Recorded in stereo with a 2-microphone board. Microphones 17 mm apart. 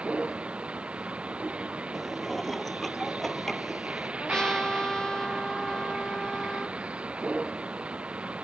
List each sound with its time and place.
0.0 s a vehicle: 90° right
1.9 s dishes clattering: 5° left (ahead or behind)
4.2 s a trumpet: 35° left (ahead or behind)